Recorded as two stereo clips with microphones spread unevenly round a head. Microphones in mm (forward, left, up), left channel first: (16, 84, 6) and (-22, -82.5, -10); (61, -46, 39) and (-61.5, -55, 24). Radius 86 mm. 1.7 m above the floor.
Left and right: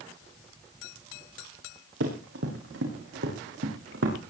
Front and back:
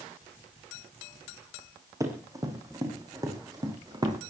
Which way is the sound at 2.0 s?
110° right.